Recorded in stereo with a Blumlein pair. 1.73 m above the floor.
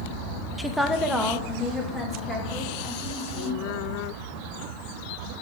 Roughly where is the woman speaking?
Ahead.